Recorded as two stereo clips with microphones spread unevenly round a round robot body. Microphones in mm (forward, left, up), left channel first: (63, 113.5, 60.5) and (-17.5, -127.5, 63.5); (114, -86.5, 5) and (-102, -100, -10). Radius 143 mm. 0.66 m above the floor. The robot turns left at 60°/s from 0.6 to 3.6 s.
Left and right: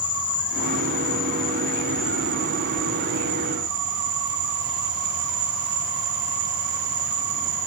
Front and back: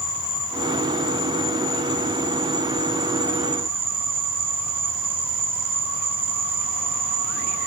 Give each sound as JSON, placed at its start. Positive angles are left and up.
{"t": 0.0, "sound": "an insect", "azimuth_deg": 65, "distance_m": 1.5}